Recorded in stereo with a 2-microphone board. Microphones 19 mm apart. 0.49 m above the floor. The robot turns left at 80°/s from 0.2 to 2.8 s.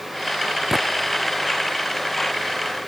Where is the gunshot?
25° right (ahead or behind); by 0.9 s 15° right (ahead or behind).